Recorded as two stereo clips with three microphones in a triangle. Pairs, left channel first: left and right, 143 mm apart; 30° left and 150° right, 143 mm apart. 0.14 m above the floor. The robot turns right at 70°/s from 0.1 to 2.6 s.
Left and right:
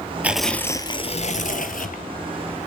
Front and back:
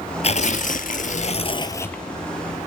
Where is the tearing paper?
10° right, 1.8 m; by 2.0 s 115° left, 1.8 m.